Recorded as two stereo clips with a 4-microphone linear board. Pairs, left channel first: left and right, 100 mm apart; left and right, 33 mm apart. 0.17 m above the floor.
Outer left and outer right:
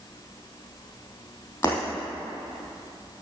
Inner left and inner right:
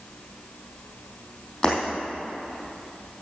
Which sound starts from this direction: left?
Breaking glass, at 1.6 s.